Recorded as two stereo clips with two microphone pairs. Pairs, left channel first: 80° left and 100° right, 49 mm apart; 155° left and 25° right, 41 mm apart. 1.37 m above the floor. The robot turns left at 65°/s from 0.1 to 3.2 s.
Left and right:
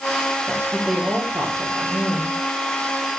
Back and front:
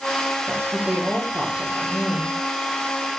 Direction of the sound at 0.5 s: 30° right.